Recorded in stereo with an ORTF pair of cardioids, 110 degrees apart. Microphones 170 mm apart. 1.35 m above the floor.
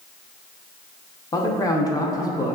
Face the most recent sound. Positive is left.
turn(degrees=20)